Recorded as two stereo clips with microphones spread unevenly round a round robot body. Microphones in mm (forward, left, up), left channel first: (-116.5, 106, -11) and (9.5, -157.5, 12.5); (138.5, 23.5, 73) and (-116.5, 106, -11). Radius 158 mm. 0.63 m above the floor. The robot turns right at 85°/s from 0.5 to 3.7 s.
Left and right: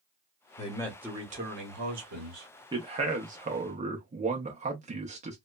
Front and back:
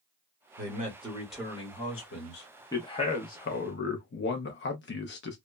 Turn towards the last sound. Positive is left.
turn(degrees=-40)